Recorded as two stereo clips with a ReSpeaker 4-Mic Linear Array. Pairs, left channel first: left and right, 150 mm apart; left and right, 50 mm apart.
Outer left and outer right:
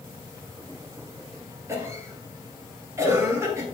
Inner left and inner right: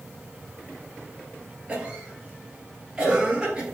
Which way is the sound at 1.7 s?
20° right (ahead or behind).